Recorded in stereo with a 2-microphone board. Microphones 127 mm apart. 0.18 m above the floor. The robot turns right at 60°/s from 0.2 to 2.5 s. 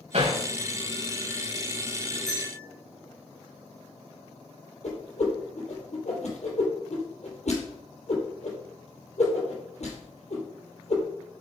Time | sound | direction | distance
0.1 | hammering | 65° right (ahead or behind) | 7.5 m
2.3 | a bell | 70° left (ahead or behind) | 7 m
4.8 | a whoosh | 70° left (ahead or behind) | 4.5 m